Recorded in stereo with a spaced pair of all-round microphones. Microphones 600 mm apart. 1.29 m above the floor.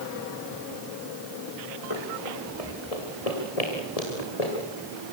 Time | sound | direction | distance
1.9 | running footsteps | 55° left (ahead or behind) | 3.5 m